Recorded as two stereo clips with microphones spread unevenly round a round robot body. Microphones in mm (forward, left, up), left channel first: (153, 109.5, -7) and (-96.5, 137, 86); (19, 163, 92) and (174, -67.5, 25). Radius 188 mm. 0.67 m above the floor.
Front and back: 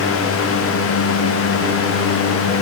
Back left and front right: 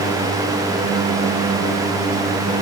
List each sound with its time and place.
Only background noise.